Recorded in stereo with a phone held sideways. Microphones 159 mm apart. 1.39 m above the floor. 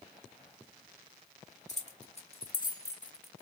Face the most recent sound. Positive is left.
turn(degrees=-5)  # may be behind; listen again after turning